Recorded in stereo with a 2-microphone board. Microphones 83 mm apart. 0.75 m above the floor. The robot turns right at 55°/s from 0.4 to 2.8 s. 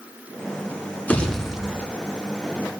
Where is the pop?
160° left, 1.4 m; by 1.9 s 155° right, 1.4 m.